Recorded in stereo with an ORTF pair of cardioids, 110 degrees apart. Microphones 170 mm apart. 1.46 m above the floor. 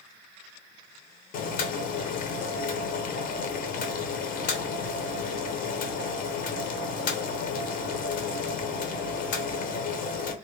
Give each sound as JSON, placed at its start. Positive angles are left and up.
{"t": 1.3, "sound": "boiling", "azimuth_deg": 55, "distance_m": 0.7}